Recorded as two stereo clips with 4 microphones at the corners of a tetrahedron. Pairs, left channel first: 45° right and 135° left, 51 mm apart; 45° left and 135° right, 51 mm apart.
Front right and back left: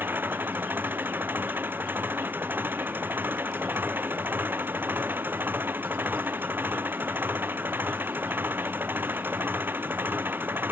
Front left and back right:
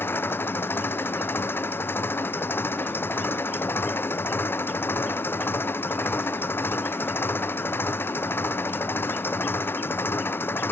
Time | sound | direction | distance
0.0 | an engine running | 85° left | ?